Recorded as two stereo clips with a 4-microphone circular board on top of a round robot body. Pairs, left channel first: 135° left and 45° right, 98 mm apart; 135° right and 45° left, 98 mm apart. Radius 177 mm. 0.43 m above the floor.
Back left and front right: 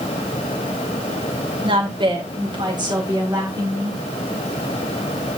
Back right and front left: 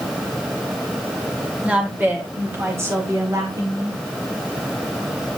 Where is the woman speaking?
30° right, 3 m; by 4.0 s 5° left, 3 m.